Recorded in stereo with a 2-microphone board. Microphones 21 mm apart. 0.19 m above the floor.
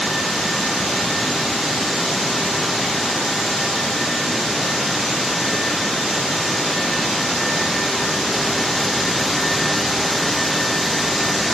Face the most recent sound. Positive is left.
No sound to turn to.